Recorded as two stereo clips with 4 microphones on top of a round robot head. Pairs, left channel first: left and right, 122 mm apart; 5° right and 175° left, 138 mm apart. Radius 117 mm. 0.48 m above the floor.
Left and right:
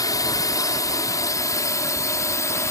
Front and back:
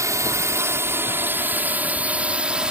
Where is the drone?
125° left; by 2.7 s 100° left.